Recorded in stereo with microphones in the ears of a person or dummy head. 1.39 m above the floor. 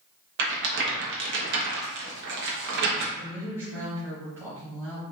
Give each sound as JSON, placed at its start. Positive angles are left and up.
{"t": 0.4, "sound": "a rattle", "side_deg": -60, "distance_m": 1.0}
{"t": 3.1, "sound": "a woman speaking", "side_deg": -10, "distance_m": 1.5}